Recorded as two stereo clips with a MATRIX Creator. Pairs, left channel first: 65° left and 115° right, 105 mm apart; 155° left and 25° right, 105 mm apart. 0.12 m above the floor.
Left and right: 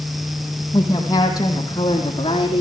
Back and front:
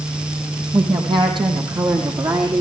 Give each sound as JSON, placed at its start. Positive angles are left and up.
{"t": 0.7, "sound": "a woman speaking", "azimuth_deg": 10, "distance_m": 5.0}